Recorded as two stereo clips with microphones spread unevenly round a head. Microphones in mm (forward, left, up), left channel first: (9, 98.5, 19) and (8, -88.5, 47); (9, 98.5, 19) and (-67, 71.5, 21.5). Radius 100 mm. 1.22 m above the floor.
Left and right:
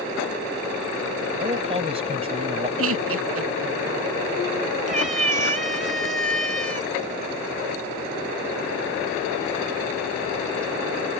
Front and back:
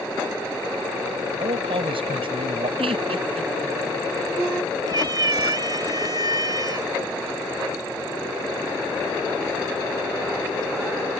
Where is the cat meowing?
130° right.